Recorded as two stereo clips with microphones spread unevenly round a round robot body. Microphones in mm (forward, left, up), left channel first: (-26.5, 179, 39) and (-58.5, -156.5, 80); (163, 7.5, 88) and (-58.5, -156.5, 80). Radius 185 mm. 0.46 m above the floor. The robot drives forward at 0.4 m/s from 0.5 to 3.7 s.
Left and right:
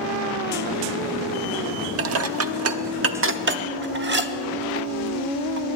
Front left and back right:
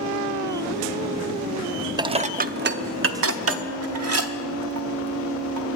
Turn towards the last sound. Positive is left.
turn(degrees=-155)